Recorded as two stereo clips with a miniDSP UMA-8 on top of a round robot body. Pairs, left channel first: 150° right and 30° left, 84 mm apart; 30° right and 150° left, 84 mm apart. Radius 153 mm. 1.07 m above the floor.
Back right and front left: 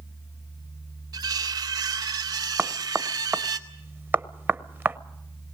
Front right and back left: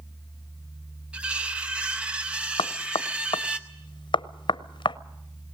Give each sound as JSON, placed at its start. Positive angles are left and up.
{"t": 1.1, "sound": "cutlery clinking", "azimuth_deg": 75, "distance_m": 0.7}
{"t": 2.6, "sound": "knocking", "azimuth_deg": -35, "distance_m": 0.8}